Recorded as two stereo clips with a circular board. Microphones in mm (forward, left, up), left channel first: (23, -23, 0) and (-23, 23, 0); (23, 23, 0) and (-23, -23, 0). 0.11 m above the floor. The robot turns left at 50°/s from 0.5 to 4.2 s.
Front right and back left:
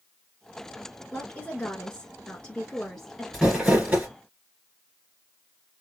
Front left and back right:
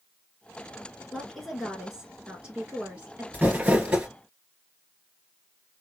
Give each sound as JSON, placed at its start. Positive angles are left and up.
{"t": 1.1, "sound": "a woman speaking", "azimuth_deg": -25, "distance_m": 1.1}
{"t": 3.3, "sound": "crumpling", "azimuth_deg": -150, "distance_m": 1.8}